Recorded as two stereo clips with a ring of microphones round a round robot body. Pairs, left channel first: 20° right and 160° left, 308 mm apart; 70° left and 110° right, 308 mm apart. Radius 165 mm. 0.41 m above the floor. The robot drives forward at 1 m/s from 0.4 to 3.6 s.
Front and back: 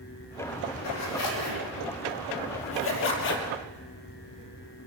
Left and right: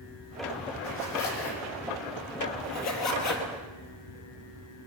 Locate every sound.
0.8 s a zipper: 15° left, 5.5 m; by 3.5 s 35° left, 3 m